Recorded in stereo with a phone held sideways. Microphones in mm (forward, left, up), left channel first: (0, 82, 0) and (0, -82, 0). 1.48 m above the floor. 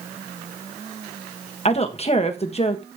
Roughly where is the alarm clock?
No alarm clock in this recording.